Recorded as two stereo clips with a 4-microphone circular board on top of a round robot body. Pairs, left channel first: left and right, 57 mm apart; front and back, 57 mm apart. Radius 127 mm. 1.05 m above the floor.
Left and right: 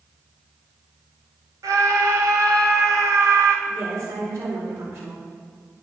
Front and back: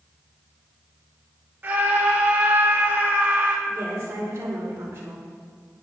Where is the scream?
115° right, 3 m.